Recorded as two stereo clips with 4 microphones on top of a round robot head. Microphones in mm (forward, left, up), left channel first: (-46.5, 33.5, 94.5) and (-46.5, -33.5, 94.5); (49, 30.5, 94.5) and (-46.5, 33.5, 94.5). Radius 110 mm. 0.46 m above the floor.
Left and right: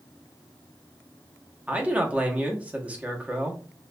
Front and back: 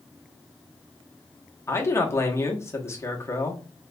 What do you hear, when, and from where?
1.7 s a man speaking: 35° right, 0.9 m